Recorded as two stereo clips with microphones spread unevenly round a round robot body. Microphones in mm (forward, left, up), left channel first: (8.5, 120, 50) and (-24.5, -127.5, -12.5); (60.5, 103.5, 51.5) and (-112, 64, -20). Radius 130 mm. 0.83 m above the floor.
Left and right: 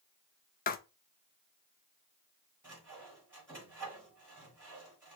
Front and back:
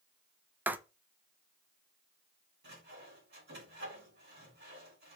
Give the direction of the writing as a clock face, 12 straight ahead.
7 o'clock.